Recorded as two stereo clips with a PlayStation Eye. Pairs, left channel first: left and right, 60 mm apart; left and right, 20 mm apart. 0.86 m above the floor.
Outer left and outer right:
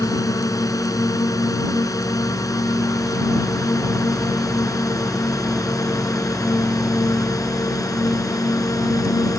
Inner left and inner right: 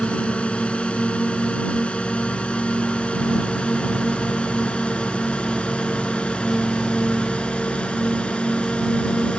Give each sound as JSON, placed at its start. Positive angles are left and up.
{"t": 0.0, "sound": "a drone", "side_deg": 85}